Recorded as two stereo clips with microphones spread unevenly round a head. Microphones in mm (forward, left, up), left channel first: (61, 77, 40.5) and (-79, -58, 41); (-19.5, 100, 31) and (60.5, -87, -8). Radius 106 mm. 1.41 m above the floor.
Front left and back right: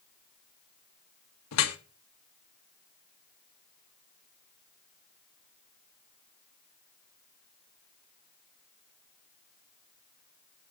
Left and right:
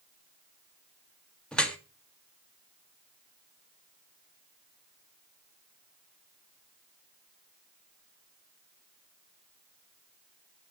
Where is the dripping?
30° left, 1.3 m.